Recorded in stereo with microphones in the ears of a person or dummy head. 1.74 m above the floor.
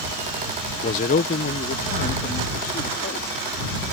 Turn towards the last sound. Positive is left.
turn(degrees=55)  # may be behind; listen again after turning